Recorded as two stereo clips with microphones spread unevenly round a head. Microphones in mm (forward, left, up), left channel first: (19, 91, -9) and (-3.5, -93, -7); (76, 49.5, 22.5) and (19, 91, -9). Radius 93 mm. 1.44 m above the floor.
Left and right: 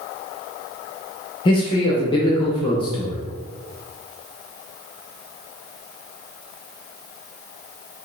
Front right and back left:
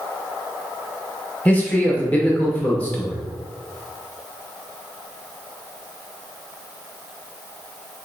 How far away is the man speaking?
About 0.9 m.